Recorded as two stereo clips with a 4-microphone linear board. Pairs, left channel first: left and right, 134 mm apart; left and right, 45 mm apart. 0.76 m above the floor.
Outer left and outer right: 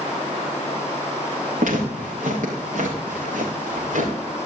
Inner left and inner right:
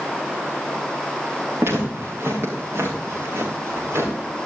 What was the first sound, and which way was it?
Footsteps, 80° right.